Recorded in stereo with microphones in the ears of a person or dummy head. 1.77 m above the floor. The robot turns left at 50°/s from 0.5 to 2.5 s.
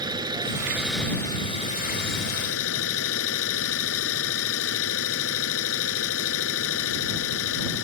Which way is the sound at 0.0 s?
155° right.